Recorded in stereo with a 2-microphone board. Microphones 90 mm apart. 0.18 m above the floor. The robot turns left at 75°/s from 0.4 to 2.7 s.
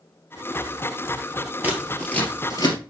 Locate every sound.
1.6 s scissors: 20° right (ahead or behind), 2 m; by 2.8 s 55° left (ahead or behind), 2 m